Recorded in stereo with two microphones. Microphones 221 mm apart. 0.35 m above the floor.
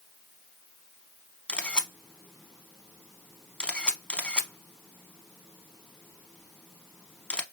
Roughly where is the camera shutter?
Centre.